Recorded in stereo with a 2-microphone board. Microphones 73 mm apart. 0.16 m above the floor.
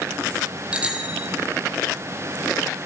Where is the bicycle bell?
15° right (ahead or behind), 4 m.